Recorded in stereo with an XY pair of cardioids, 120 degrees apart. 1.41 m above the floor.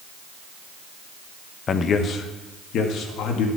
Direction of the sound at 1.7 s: 40° left.